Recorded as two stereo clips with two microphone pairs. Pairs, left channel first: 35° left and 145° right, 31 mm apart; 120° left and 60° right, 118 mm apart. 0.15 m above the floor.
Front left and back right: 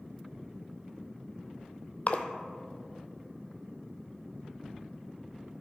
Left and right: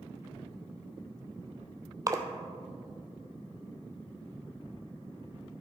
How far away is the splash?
About 0.7 m.